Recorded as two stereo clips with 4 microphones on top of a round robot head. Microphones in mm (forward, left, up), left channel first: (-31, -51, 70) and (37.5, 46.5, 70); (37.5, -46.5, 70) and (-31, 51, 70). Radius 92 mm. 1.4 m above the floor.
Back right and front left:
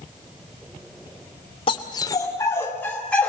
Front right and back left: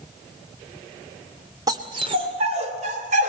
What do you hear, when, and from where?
1.7 s a dog barking: 175° right, 2.0 m; by 3.3 s 150° left, 3.5 m